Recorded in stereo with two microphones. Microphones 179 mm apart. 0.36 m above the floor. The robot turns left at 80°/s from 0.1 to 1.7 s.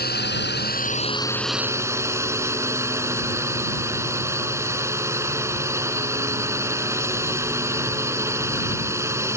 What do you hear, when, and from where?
0.0 s a drone: 110° left; by 9.4 s 15° right